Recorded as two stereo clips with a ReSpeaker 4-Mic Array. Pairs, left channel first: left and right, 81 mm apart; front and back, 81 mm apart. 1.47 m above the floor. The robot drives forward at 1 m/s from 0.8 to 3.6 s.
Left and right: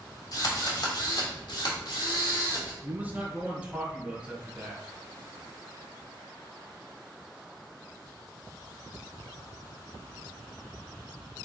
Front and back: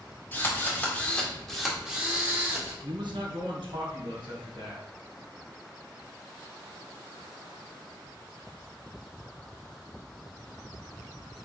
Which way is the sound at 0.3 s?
65° left.